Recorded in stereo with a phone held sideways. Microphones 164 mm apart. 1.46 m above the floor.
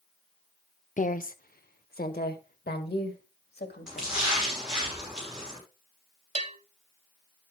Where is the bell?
45° right (ahead or behind), 0.9 m.